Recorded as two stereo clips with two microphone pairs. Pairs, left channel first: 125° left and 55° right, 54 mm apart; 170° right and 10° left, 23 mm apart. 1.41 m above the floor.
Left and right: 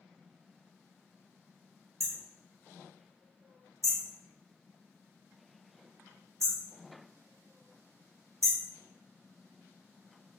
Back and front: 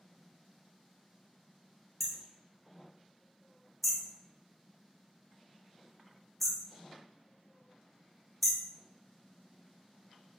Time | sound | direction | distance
2.0 | hammering | 80° right | 0.9 m